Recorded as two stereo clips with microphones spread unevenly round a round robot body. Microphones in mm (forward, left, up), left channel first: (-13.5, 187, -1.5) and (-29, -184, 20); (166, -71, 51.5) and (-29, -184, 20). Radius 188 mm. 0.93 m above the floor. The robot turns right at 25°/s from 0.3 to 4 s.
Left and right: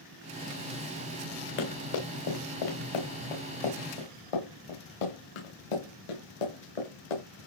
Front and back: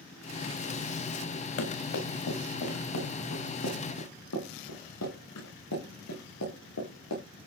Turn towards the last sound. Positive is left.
turn(degrees=75)